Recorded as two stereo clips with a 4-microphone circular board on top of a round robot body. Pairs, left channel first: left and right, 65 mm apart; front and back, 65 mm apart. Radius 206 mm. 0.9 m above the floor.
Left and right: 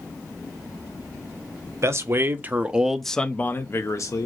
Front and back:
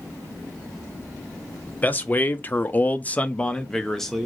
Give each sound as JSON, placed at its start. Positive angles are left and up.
{"t": 1.8, "sound": "a man speaking", "azimuth_deg": -60, "distance_m": 1.1}